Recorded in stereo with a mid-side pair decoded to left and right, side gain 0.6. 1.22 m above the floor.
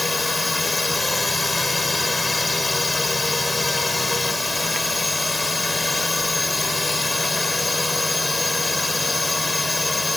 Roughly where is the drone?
Ahead.